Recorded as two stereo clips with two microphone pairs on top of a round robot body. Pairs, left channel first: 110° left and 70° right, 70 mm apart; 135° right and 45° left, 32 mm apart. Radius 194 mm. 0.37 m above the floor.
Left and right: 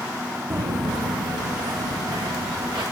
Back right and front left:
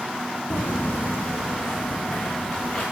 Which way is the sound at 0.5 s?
120° right.